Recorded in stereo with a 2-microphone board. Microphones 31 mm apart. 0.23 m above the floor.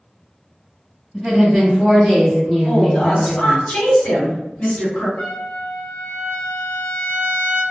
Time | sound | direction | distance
1.1 | a woman speaking | 10° right (ahead or behind) | 1.4 m
2.6 | a woman speaking | 50° left (ahead or behind) | 2.0 m
5.2 | a trumpet | 70° left (ahead or behind) | 1.3 m